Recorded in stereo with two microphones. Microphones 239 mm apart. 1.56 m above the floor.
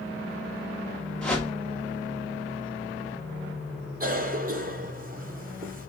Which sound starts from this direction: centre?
A whoosh, at 1.2 s.